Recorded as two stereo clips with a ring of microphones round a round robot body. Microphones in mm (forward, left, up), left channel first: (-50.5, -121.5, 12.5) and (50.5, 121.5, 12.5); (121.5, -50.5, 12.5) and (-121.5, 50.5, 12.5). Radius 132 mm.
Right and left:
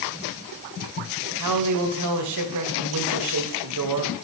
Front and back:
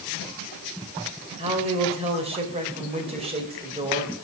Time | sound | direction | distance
1.4 | a man speaking | 90° left | 2.5 m